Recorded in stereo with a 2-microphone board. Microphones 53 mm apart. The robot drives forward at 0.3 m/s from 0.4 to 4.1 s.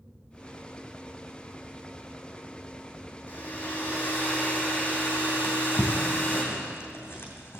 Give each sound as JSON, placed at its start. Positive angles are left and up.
{"t": 3.3, "sound": "a hair dryer", "side_deg": 35, "distance_m": 3.5}
{"t": 5.4, "sound": "a drawer", "side_deg": 55, "distance_m": 2.5}